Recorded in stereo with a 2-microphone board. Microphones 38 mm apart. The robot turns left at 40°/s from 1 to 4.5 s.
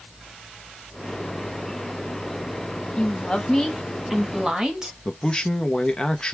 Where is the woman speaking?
40° left, 1.3 m; by 5.0 s 20° right, 1.3 m.